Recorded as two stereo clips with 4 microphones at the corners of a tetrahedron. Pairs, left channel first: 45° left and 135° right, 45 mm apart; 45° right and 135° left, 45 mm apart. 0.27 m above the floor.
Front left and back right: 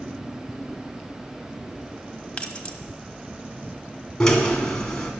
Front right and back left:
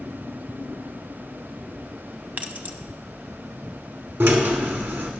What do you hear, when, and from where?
2.4 s keys jangling: 100° left, 0.9 m
4.2 s a drill: 115° left, 1.8 m